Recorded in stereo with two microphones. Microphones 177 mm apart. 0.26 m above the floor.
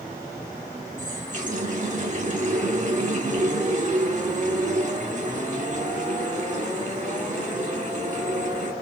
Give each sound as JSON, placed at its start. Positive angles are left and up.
{"t": 1.0, "sound": "a running tap", "side_deg": -50, "distance_m": 1.2}